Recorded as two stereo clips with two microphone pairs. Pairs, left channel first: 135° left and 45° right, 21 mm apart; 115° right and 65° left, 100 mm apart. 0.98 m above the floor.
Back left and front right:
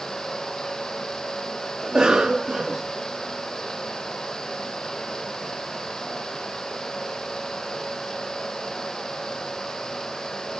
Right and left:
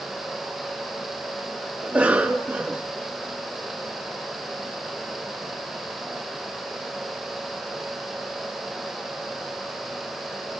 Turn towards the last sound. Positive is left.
turn(degrees=-10)